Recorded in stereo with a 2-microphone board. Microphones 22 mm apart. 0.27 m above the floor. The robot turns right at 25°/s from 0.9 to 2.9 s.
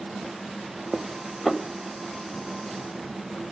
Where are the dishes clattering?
Centre (ahead or behind), 0.6 m; by 1.6 s 5° right (ahead or behind), 0.6 m.